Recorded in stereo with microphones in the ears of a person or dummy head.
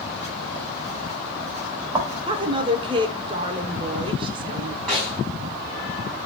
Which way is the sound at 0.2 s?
10° right (ahead or behind).